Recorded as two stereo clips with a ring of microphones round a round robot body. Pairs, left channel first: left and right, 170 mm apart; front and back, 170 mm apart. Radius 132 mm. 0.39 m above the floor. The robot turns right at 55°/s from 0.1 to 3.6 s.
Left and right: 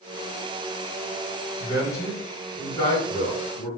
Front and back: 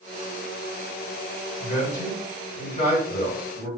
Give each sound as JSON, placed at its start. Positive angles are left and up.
{"t": 1.6, "sound": "a man speaking", "azimuth_deg": -40, "distance_m": 1.8}